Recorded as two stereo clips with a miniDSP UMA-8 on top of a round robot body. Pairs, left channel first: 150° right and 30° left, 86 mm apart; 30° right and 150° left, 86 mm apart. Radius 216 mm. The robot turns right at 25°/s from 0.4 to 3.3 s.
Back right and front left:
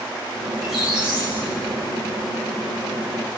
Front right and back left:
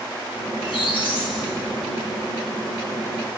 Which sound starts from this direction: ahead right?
A squeak, at 0.5 s.